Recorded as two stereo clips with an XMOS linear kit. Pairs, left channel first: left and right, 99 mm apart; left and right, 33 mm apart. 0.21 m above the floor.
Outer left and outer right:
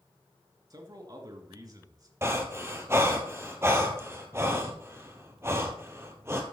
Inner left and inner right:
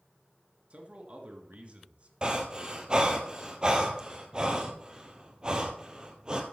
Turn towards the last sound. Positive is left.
turn(degrees=-25)  # may be behind; listen again after turning